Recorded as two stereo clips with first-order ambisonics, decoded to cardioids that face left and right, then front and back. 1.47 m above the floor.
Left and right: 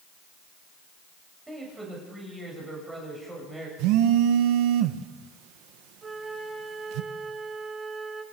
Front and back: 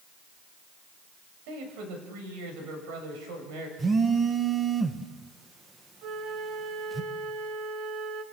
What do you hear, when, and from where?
1.5 s a man speaking: 170° right, 8 m
3.8 s a phone buzzing: 105° right, 1.4 m
6.0 s a flute: 160° right, 2.0 m